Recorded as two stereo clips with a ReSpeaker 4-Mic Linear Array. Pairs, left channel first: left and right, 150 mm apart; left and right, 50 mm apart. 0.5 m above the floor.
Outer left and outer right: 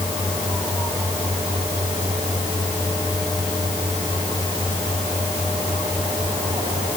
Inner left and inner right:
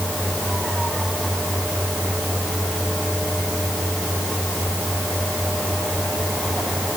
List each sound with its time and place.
Only background noise.